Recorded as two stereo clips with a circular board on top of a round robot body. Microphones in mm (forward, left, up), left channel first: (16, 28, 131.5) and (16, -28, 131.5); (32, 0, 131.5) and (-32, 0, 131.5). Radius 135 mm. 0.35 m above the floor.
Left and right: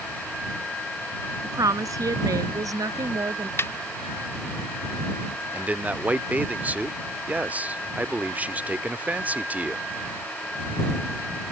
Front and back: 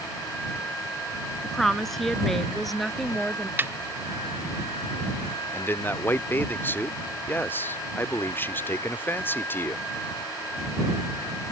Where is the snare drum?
125° left.